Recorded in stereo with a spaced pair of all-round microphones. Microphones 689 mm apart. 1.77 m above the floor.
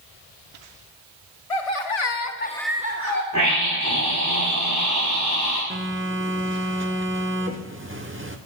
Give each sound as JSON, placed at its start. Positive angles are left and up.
{"t": 1.5, "sound": "laughter", "side_deg": 65, "distance_m": 1.4}
{"t": 3.3, "sound": "a scream", "side_deg": -25, "distance_m": 4.5}
{"t": 5.7, "sound": "a phone buzzing", "side_deg": -20, "distance_m": 1.0}